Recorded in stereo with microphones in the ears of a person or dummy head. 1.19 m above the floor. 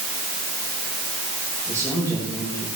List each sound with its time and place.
1.7 s a man speaking: 15° left (ahead or behind), 6.5 m